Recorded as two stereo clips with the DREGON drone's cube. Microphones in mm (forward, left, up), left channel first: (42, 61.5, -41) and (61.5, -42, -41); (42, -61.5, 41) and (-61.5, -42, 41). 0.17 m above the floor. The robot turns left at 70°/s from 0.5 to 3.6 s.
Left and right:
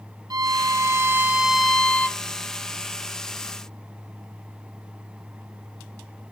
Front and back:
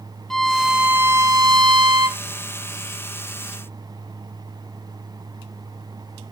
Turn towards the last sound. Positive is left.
turn(degrees=50)